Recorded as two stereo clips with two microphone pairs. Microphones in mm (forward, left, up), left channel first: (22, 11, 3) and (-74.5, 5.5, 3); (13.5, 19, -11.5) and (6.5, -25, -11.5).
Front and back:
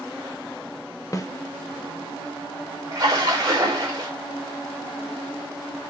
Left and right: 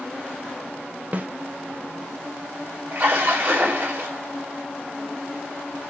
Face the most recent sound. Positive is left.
turn(degrees=-130)